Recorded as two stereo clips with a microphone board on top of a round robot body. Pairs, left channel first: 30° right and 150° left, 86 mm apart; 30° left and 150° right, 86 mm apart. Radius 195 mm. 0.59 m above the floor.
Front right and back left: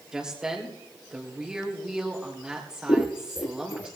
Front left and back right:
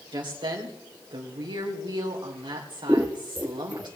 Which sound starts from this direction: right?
Scissors, at 2.9 s.